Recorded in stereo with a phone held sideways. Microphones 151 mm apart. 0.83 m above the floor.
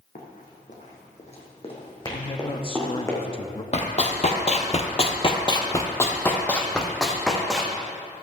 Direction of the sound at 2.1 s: 35° left (ahead or behind).